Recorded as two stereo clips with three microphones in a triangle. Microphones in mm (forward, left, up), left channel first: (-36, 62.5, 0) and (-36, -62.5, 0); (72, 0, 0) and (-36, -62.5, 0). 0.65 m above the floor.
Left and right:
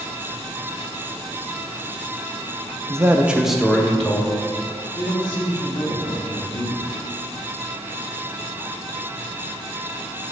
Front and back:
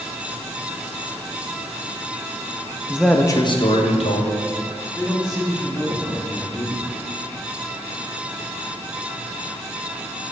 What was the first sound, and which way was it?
A man speaking, 90° right.